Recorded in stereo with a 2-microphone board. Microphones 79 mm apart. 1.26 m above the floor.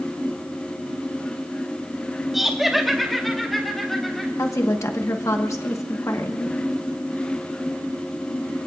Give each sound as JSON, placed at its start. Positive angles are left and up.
{"t": 2.3, "sound": "laughter", "side_deg": -5, "distance_m": 2.5}
{"t": 4.4, "sound": "a woman speaking", "side_deg": 40, "distance_m": 1.1}